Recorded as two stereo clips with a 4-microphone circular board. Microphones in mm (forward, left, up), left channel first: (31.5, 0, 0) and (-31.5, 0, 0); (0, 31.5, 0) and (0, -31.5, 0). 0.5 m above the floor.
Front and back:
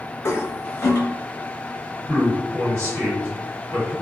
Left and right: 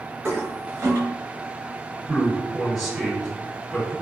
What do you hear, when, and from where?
0.2 s a toilet flushing: 50° right, 0.7 m
2.1 s a man speaking: 175° left, 1.9 m